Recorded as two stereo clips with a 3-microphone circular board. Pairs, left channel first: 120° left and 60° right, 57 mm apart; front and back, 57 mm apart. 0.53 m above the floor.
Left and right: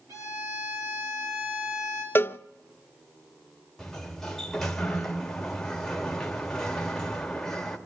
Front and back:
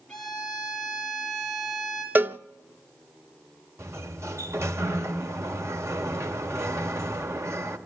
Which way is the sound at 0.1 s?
75° right.